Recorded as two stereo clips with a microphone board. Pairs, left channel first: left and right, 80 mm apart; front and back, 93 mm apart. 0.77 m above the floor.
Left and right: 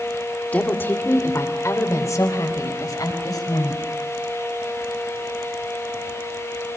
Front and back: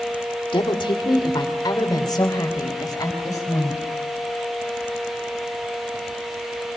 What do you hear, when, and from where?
0.5 s a woman speaking: 20° left, 2.0 m; by 3.8 s 50° left, 5.5 m